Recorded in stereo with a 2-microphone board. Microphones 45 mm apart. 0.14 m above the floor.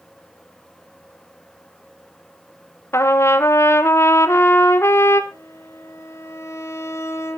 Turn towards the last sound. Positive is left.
turn(degrees=80)